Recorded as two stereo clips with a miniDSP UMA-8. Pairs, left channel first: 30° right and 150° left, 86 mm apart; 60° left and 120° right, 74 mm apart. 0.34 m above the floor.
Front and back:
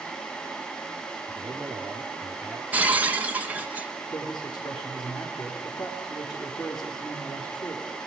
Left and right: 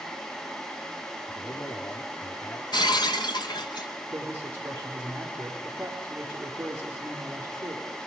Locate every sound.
1.3 s a man speaking: 80° left, 5.5 m
2.7 s breaking glass: 75° left, 1.4 m
4.1 s a man speaking: 60° right, 7 m